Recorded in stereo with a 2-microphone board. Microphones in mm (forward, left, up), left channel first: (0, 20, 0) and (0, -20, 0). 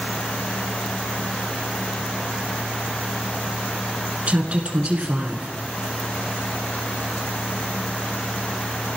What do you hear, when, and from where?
4.3 s a woman speaking: 35° right (ahead or behind), 1.7 m